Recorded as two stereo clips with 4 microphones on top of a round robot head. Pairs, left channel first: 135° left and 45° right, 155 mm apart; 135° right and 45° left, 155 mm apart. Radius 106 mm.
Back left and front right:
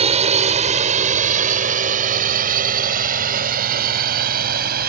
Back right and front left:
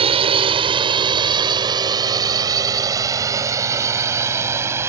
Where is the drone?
Straight ahead; by 4.9 s 30° right.